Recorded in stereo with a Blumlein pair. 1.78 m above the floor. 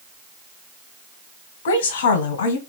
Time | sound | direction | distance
1.6 | a woman speaking | 55° left | 1.4 m